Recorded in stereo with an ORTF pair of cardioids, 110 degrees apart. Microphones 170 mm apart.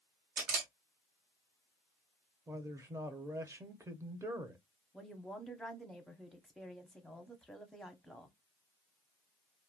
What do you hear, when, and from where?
0.4 s a camera shutter: 60° right, 1.3 m
2.5 s a man speaking: 15° right, 0.8 m
4.9 s a woman speaking: straight ahead, 0.8 m